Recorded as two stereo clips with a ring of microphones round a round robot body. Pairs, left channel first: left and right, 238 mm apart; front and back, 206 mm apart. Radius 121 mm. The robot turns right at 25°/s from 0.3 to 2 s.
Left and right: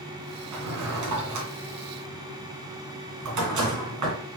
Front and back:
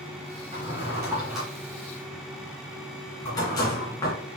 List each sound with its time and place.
0.5 s a drawer: 115° right, 2.5 m; by 4.2 s 75° right, 2.5 m